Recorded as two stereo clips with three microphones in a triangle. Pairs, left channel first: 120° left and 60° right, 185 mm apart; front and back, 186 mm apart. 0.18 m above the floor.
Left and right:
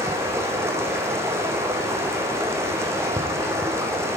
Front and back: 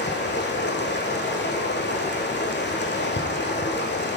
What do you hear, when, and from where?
0.0 s running water: 15° left, 1.3 m